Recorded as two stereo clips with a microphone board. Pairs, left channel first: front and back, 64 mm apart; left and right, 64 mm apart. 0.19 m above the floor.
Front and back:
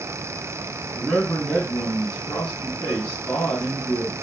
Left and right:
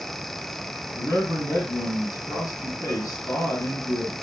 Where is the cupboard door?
No cupboard door in this recording.